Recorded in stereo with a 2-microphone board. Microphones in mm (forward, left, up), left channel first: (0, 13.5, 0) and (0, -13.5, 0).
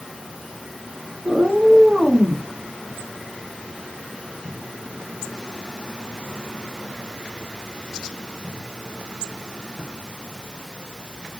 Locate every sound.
1.2 s a cat meowing: 55° right (ahead or behind), 1.3 m; by 2.5 s 40° left (ahead or behind), 1.2 m